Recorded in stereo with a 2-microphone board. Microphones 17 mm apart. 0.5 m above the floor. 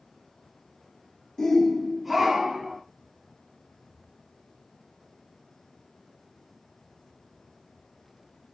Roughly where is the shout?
Left.